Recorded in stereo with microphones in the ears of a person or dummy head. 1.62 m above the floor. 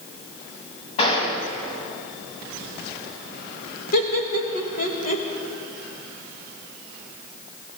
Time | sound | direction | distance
1.0 | a gunshot | 35° left (ahead or behind) | 3 m
3.9 | laughter | 55° left (ahead or behind) | 1.6 m